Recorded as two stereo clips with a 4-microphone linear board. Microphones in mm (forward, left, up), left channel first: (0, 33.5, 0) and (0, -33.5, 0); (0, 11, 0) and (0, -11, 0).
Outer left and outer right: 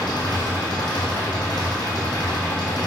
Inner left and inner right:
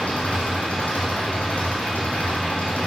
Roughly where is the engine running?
Left.